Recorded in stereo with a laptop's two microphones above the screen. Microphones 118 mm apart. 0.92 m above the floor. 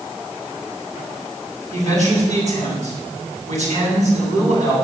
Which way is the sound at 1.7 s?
65° right (ahead or behind).